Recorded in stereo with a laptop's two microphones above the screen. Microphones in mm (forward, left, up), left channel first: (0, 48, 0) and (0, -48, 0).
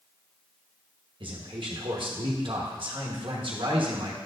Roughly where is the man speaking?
Right.